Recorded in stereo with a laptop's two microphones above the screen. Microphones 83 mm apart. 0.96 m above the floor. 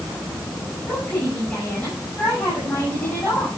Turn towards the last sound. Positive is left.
turn(degrees=20)  # may be behind; listen again after turning